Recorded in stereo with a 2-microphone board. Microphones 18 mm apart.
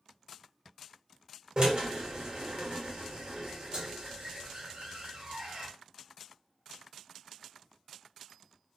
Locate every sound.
1.6 s a drill: 50° right (ahead or behind), 1.2 m